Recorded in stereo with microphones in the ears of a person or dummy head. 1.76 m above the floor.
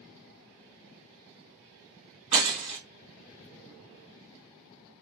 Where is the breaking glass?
30° right (ahead or behind), 2 m.